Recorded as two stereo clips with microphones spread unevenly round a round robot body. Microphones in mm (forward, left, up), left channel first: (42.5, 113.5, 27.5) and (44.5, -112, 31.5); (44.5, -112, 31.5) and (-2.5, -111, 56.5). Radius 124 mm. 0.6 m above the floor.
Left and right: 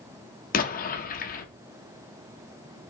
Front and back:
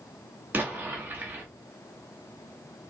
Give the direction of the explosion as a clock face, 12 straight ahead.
9 o'clock.